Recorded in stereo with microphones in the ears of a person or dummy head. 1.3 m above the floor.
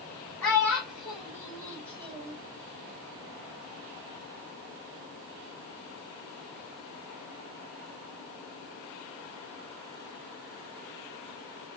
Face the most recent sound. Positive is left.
turn(degrees=-30)  # may be behind; listen again after turning